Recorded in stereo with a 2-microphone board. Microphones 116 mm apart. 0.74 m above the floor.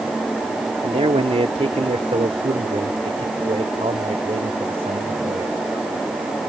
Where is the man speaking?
65° right (ahead or behind); by 5.6 s 55° right (ahead or behind).